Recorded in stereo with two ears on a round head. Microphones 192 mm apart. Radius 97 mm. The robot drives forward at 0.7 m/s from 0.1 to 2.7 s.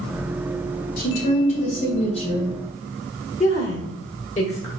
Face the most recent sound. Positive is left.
turn(degrees=35)  # may be behind; listen again after turning